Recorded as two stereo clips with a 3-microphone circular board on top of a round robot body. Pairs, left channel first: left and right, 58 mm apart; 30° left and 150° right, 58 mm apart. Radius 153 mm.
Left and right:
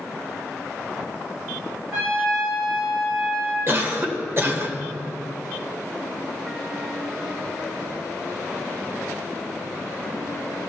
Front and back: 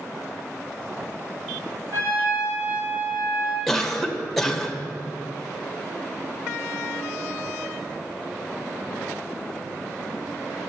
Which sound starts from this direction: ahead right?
A cough, at 3.7 s.